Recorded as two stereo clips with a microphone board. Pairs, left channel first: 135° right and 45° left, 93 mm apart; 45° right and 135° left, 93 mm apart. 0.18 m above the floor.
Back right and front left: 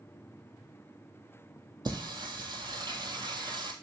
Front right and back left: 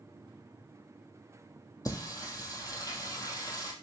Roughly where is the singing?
Ahead.